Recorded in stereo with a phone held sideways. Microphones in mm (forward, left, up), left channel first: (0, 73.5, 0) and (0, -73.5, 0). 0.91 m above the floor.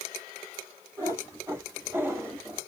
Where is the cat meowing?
20° right (ahead or behind), 3 m; by 2.6 s 15° right (ahead or behind), 1.9 m.